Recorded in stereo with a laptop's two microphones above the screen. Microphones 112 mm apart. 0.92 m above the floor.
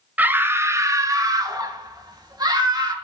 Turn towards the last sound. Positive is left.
turn(degrees=-40)  # may be behind; listen again after turning